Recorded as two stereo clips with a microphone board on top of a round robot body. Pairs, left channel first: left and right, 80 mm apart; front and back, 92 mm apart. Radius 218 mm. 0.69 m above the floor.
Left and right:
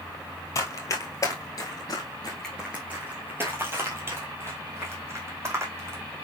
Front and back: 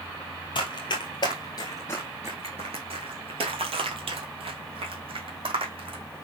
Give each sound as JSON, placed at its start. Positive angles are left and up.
{"t": 0.6, "sound": "running footsteps", "azimuth_deg": 40, "distance_m": 1.5}